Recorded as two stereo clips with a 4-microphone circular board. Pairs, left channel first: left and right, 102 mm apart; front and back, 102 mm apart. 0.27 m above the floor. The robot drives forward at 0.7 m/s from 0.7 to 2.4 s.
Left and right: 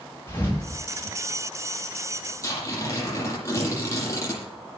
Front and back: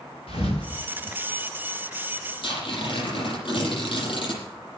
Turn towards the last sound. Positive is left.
turn(degrees=30)